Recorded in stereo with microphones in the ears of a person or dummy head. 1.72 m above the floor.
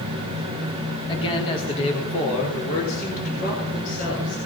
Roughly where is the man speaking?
Left.